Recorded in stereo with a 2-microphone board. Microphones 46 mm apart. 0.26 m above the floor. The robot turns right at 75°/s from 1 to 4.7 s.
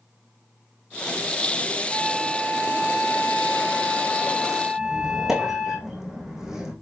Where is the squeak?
10° right (ahead or behind), 3.5 m.